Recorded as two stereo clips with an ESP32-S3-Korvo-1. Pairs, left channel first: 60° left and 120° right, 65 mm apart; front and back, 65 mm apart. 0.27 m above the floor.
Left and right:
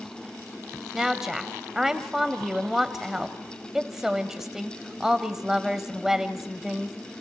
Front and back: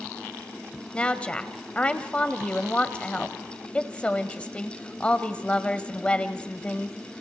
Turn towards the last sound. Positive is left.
turn(degrees=-45)